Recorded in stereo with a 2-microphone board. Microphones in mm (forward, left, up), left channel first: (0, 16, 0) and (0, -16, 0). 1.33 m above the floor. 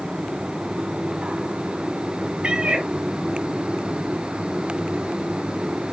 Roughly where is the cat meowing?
Right.